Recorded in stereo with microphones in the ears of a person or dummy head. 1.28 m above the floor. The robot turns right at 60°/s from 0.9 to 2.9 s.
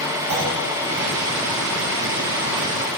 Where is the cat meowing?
No cat meowing in this recording.